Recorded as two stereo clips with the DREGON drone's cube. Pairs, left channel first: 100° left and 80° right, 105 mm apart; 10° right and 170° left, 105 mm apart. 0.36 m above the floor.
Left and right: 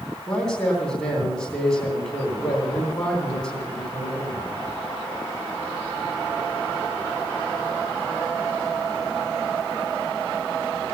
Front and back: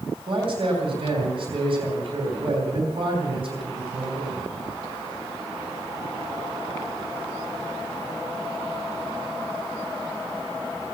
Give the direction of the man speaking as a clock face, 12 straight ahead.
6 o'clock.